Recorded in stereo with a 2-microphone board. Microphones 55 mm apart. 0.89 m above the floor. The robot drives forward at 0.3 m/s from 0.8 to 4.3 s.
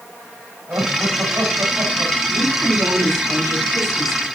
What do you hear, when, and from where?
0.7 s laughter: 50° right (ahead or behind), 6 m; by 2.1 s 45° right (ahead or behind), 6 m
2.3 s a woman speaking: 80° right, 7 m; by 4.3 s 75° right (ahead or behind), 7 m